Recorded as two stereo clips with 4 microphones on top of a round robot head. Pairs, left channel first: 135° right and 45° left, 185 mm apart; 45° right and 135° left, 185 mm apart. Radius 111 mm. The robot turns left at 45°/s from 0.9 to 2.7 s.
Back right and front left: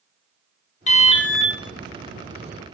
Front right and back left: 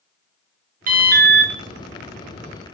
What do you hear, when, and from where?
0.9 s an alarm: 175° left, 1.3 m; by 1.5 s 145° left, 1.3 m